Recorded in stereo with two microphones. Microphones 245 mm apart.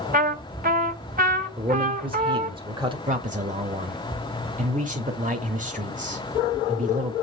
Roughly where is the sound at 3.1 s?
Right.